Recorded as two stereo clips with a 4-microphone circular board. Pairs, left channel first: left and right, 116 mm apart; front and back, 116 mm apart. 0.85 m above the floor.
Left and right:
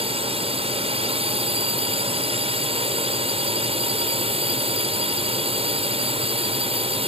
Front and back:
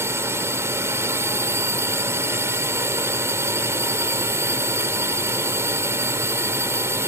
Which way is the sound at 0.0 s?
115° right.